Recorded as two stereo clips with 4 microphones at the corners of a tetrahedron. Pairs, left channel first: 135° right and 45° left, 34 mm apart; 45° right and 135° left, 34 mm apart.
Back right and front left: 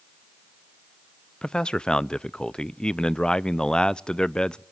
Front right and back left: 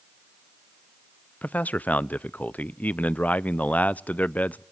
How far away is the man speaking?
About 0.6 m.